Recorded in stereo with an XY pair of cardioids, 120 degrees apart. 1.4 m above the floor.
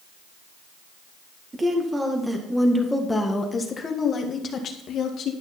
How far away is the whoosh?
No whoosh in this recording.